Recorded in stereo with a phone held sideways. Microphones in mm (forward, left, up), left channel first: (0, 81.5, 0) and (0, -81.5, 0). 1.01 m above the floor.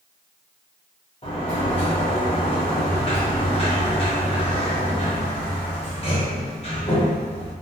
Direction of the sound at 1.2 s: 35° left (ahead or behind).